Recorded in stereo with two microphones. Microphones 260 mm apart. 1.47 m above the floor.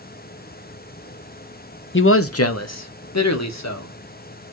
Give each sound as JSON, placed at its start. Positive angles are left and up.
{"t": 1.9, "sound": "a man speaking", "side_deg": 45, "distance_m": 0.7}